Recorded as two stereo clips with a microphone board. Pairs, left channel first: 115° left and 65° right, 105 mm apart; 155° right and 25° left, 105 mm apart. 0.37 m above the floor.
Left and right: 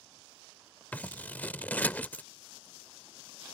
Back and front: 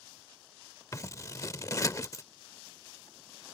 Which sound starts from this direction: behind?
Scissors, at 0.9 s.